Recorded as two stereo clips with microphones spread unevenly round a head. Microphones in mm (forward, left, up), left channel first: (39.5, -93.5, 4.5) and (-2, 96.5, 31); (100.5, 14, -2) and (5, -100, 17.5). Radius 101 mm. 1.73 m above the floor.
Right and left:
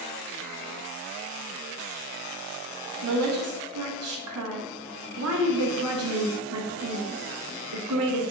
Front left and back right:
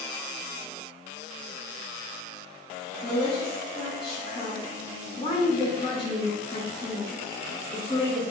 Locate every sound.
3.0 s a woman speaking: 120° left, 0.8 m